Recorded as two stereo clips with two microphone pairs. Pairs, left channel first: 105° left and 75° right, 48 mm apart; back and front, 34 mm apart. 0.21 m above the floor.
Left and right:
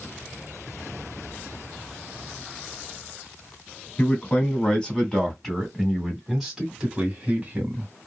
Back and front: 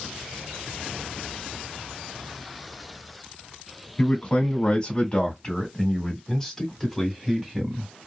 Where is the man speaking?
155° left, 2 m; by 7.9 s 70° right, 1.9 m.